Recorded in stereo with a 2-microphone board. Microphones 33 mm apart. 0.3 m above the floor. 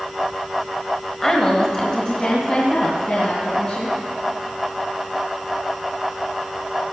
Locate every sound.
1.2 s a woman speaking: 10° left (ahead or behind), 1.0 m; by 4.0 s 30° left (ahead or behind), 3 m